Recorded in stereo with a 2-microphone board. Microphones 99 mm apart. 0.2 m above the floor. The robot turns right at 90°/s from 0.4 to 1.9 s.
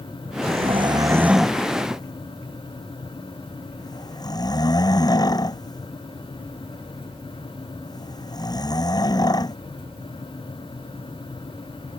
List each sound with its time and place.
0.4 s snoring: 85° right; by 9.6 s 40° left (ahead or behind)